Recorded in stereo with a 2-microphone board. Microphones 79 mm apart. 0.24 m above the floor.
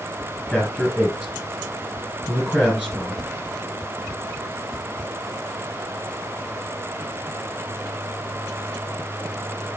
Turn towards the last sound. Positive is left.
turn(degrees=-10)  # may be behind; listen again after turning